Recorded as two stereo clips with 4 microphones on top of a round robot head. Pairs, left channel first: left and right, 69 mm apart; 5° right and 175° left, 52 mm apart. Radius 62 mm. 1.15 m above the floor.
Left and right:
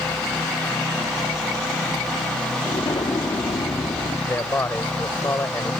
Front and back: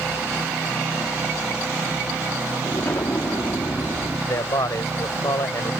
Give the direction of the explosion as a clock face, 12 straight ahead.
11 o'clock.